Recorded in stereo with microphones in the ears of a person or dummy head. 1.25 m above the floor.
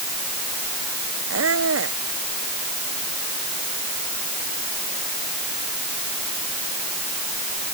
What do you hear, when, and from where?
1.3 s a squeak: 75° right (ahead or behind)